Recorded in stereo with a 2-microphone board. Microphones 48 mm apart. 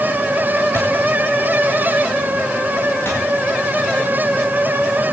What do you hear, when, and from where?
0.7 s a thud: 70° left (ahead or behind), 8.5 m
3.0 s a thud: 50° left (ahead or behind), 8.5 m